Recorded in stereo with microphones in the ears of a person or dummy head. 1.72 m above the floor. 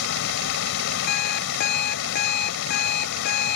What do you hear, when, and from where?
0.0 s running water: 70° left (ahead or behind)
1.1 s an alarm clock: 55° left (ahead or behind)